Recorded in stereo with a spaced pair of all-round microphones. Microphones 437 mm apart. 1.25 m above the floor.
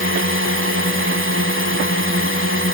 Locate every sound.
0.0 s a drone: 30° right (ahead or behind)